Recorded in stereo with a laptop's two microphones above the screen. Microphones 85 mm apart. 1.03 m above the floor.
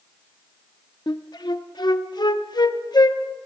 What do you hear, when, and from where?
1.1 s a flute: 55° left (ahead or behind), 0.8 m